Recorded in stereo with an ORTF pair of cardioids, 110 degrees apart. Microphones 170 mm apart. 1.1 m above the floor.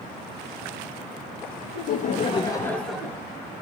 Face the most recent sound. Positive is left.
turn(degrees=-15)